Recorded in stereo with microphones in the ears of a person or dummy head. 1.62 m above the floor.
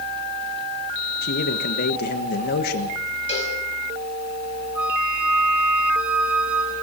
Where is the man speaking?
60° left (ahead or behind), 1.4 m.